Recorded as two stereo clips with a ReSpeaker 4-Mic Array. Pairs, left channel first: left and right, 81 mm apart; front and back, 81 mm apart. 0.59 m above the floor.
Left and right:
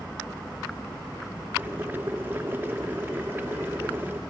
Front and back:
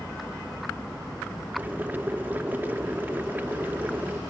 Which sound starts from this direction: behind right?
Boiling, at 1.6 s.